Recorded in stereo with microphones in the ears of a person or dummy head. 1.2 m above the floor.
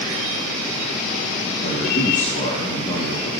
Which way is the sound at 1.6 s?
45° left (ahead or behind).